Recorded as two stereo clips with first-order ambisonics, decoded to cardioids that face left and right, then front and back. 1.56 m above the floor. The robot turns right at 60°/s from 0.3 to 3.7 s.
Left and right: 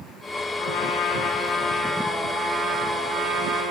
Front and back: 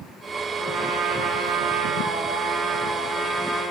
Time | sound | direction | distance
0.6 | a trumpet | 100° left | 5.5 m